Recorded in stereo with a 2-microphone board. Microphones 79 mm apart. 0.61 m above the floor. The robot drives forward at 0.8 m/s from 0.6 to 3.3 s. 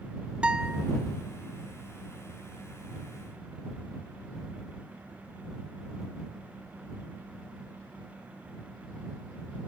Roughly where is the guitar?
Centre.